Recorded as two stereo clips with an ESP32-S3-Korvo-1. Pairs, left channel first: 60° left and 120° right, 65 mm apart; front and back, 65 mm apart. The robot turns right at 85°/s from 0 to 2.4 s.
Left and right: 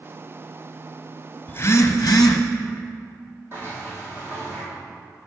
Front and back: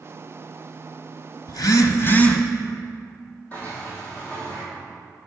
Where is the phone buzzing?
Straight ahead, 0.7 m; by 2.4 s 80° left, 0.7 m.